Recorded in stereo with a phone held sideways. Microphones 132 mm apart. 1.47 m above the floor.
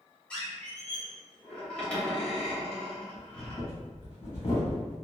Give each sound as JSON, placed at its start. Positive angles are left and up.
{"t": 0.3, "sound": "a squeak", "side_deg": 10, "distance_m": 0.9}
{"t": 3.1, "sound": "breathing", "side_deg": 25, "distance_m": 1.5}